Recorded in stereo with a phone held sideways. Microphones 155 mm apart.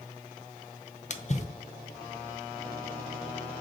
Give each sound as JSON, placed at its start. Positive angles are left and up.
{"t": 1.1, "sound": "a splash", "side_deg": 50, "distance_m": 0.7}